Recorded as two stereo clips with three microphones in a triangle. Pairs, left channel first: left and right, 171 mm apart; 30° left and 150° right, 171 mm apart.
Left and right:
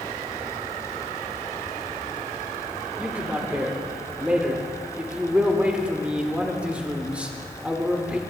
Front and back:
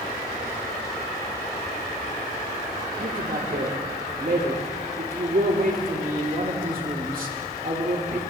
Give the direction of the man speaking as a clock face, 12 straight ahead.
6 o'clock.